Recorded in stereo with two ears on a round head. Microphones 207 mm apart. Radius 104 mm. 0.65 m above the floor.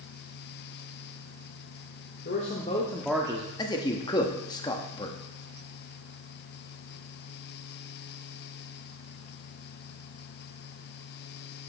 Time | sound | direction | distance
2.2 | a man speaking | 40° left (ahead or behind) | 1.8 m
3.6 | a man speaking | 15° left (ahead or behind) | 0.9 m